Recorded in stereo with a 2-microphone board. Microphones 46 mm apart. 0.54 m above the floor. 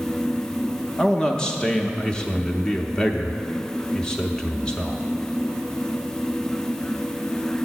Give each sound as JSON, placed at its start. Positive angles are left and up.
{"t": 1.0, "sound": "a man speaking", "side_deg": 20, "distance_m": 0.6}